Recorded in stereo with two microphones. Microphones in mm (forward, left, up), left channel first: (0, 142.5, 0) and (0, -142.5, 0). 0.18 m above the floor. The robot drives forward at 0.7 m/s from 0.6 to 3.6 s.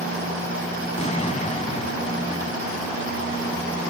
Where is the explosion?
25° left (ahead or behind); by 2.5 s 20° left (ahead or behind).